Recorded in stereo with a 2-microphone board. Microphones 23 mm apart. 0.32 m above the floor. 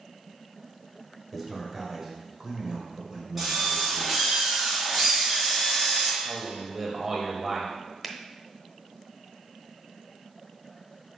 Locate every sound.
1.3 s a man speaking: centre (ahead or behind), 1.6 m; by 4.2 s 40° right (ahead or behind), 2 m
3.4 s a drill: centre (ahead or behind), 3 m
6.2 s a man speaking: 15° right (ahead or behind), 1.0 m
8.0 s a finger snap: centre (ahead or behind), 0.7 m